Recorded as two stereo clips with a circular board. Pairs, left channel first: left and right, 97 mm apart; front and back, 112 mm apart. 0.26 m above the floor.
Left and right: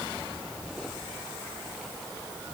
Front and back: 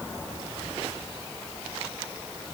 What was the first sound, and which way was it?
Only background noise.